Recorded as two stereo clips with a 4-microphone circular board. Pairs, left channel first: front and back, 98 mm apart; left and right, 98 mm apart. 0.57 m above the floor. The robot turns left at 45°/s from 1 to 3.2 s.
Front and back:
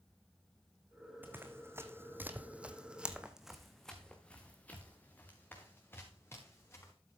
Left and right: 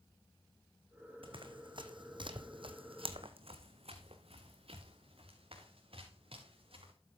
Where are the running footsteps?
110° right, 1.8 m; by 6.9 s 65° right, 5.5 m.